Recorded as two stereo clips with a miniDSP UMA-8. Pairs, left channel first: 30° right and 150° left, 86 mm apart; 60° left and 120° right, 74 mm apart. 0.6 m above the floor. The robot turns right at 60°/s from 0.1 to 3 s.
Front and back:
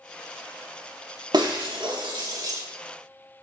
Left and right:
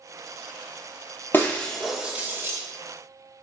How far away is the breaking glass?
About 0.5 m.